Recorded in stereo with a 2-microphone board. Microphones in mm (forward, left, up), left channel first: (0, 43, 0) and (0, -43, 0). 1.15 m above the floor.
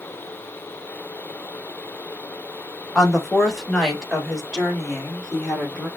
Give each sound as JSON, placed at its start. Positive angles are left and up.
{"t": 3.0, "sound": "a woman speaking", "side_deg": 0, "distance_m": 1.3}